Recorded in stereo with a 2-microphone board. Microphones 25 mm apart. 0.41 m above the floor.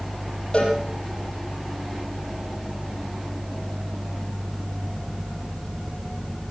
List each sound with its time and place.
0.5 s a cowbell: 45° left (ahead or behind), 6.5 m